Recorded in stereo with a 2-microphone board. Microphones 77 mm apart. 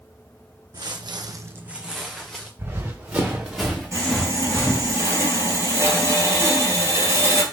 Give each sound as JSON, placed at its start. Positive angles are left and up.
{"t": 0.7, "sound": "footsteps", "side_deg": -60, "distance_m": 0.9}
{"t": 2.6, "sound": "running footsteps", "side_deg": -25, "distance_m": 2.0}
{"t": 3.9, "sound": "sawing", "side_deg": -40, "distance_m": 1.8}